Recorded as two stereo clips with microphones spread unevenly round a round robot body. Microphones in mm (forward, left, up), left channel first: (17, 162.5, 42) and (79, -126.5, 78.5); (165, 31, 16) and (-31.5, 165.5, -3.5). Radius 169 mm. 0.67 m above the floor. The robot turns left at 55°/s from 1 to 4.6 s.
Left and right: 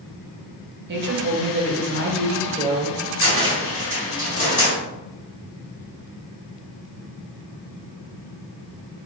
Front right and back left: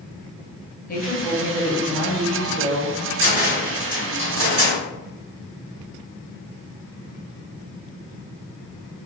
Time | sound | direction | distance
0.9 | a woman speaking | 55° right | 0.7 m
3.2 | a cupboard door | 85° right | 1.8 m